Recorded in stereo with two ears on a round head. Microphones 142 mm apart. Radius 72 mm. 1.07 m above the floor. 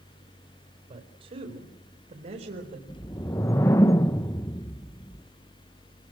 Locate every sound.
0.9 s a man speaking: 40° right (ahead or behind), 4.5 m; by 2.8 s 55° right (ahead or behind), 4.5 m
2.9 s a whoosh: 20° left (ahead or behind), 0.7 m